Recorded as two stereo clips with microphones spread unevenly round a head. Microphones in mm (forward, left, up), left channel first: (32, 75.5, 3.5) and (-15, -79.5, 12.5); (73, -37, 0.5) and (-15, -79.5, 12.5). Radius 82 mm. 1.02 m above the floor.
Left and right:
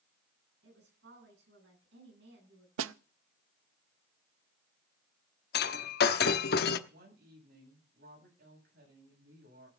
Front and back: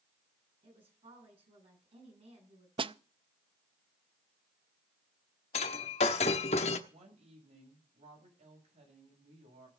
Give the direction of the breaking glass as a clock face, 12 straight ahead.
10 o'clock.